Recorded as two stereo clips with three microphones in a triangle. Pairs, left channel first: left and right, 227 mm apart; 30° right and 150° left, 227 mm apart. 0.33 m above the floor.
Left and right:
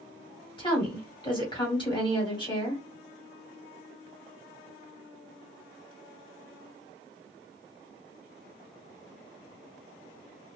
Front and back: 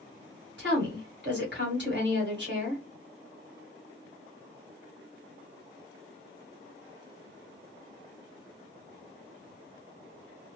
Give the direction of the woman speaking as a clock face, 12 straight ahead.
7 o'clock.